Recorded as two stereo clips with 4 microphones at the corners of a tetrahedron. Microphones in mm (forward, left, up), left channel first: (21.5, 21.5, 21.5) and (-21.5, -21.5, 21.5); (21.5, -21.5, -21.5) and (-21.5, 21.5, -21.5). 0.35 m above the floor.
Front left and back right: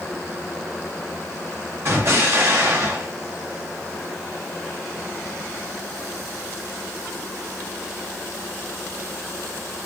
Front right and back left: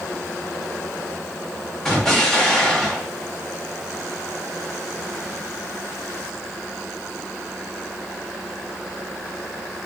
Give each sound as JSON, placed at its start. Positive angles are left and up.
{"t": 1.9, "sound": "an explosion", "azimuth_deg": -130, "distance_m": 1.7}